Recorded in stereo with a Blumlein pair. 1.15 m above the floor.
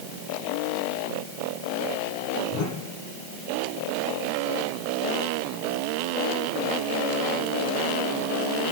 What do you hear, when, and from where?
2.5 s a whoosh: 40° left, 9 m